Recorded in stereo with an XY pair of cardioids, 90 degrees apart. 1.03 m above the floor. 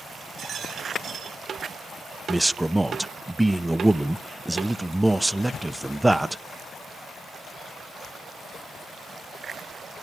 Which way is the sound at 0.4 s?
65° right.